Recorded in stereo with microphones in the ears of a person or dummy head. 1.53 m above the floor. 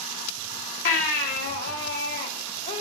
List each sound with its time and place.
0.8 s a baby crying: 40° left (ahead or behind), 1.3 m